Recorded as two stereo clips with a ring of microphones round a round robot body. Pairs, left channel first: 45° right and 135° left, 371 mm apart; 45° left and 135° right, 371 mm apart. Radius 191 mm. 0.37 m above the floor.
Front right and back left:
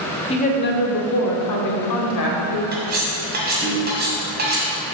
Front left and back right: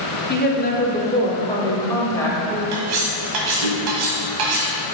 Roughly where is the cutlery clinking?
Behind.